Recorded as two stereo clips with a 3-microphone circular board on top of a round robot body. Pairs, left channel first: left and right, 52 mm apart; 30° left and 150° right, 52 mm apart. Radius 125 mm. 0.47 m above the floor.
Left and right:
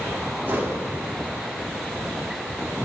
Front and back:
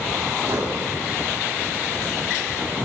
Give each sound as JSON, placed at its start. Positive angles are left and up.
{"t": 0.5, "sound": "a whoosh", "azimuth_deg": -145, "distance_m": 3.0}